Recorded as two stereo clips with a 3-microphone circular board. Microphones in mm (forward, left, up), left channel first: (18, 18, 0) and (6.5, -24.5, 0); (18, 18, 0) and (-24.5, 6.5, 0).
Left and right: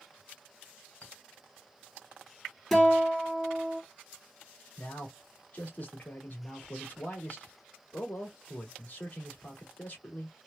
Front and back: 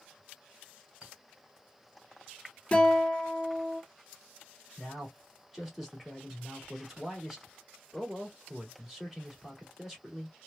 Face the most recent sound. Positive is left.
turn(degrees=115)